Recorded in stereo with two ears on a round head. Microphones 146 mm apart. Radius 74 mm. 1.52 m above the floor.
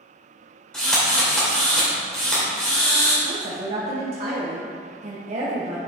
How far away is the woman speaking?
About 1.1 m.